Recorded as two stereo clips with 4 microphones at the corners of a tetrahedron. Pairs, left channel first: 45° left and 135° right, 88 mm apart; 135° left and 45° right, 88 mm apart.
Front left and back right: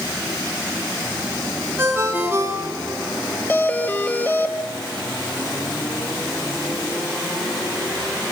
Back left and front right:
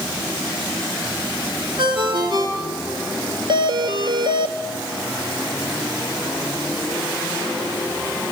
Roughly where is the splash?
I don't hear a splash.